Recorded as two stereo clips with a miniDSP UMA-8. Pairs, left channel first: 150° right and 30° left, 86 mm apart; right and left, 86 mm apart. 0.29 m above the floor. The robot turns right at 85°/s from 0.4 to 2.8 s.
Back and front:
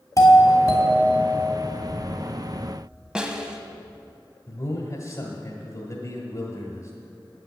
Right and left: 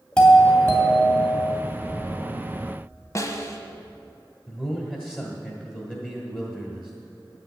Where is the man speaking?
160° right, 1.5 m.